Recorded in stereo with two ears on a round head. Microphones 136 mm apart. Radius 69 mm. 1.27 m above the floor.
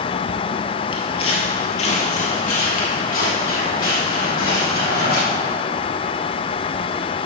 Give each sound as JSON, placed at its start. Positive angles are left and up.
{"t": 0.9, "sound": "footsteps", "side_deg": 35, "distance_m": 1.5}